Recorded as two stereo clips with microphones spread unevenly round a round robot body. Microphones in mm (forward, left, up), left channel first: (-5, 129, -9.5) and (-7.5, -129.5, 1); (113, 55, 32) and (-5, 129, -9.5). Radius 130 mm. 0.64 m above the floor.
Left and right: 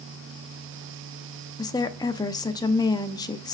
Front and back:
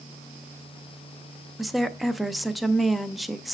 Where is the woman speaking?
125° left, 0.5 m.